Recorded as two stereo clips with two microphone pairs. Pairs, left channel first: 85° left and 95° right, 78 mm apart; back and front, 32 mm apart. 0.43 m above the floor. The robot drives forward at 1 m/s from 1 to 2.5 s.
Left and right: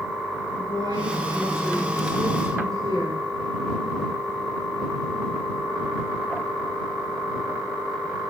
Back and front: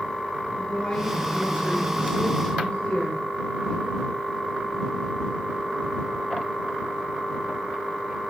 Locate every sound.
0.6 s a woman speaking: 120° right, 5 m; by 3.2 s 135° right, 5.5 m